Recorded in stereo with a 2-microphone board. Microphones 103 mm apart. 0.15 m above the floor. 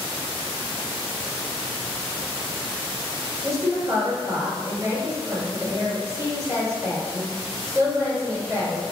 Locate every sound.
3.4 s a woman speaking: 25° right (ahead or behind), 1.6 m